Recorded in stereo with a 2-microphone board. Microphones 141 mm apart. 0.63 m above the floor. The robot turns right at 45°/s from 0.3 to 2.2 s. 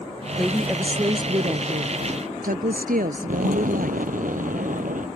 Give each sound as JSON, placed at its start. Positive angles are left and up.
{"t": 0.4, "sound": "a woman speaking", "azimuth_deg": 175}
{"t": 3.3, "sound": "an explosion", "side_deg": -70}